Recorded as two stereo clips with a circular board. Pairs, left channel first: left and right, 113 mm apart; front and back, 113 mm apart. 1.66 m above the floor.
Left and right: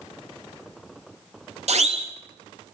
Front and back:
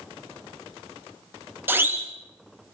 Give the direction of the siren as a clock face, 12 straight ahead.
4 o'clock.